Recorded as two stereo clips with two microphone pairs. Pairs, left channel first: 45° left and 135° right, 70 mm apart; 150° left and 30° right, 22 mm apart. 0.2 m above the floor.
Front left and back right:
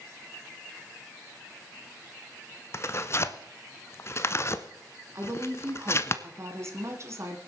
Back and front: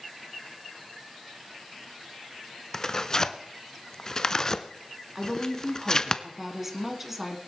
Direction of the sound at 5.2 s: 100° right.